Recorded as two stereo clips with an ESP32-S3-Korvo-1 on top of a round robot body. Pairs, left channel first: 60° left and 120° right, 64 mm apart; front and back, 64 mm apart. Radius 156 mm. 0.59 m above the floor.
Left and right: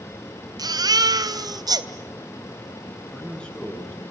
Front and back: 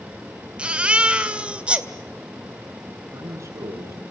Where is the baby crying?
105° right, 2 m.